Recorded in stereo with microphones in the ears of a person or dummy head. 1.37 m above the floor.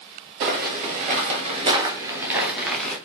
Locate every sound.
0.4 s footsteps: 45° right (ahead or behind), 1.9 m; by 3.0 s 5° left (ahead or behind), 1.5 m